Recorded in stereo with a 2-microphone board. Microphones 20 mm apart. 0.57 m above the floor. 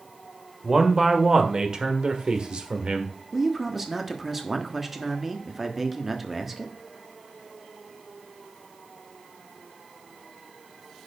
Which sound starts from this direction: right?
A man speaking, at 0.6 s.